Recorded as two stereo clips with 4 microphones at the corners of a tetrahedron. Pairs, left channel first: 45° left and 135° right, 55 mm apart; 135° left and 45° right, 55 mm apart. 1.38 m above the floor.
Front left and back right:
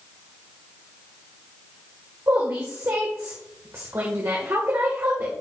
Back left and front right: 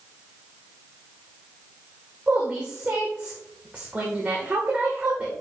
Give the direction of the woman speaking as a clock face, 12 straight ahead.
4 o'clock.